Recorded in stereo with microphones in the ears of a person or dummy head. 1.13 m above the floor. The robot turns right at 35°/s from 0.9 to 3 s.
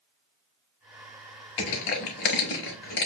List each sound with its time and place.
1.6 s crushing: 30° left (ahead or behind), 1.1 m